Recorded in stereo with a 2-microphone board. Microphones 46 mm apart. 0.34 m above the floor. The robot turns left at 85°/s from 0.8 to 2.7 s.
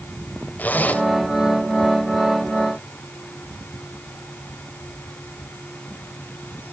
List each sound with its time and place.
0.6 s a zipper: 40° left (ahead or behind), 1.7 m; by 1.0 s 35° left (ahead or behind), 1.7 m